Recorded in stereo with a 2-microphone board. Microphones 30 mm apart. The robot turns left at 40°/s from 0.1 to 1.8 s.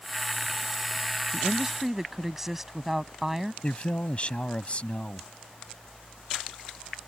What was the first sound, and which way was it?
A woman speaking, 25° right (ahead or behind).